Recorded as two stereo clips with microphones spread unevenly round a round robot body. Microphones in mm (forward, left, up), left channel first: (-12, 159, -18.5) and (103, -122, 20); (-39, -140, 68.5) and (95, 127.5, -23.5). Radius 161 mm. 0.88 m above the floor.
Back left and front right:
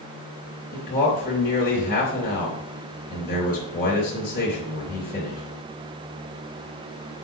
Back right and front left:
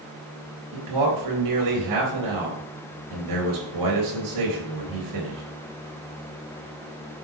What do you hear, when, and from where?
0.7 s a man speaking: 50° left, 3.5 m